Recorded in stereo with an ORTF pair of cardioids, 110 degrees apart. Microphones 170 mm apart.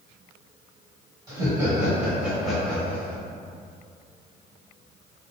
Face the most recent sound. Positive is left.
turn(degrees=15)